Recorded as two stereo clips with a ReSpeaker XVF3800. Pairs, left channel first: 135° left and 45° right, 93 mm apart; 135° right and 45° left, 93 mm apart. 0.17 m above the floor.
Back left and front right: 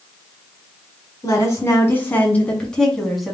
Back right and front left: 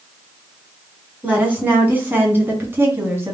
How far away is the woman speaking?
About 1.9 m.